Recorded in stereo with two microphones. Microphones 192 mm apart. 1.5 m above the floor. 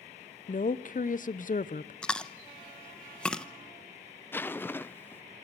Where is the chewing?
5° left (ahead or behind), 0.8 m.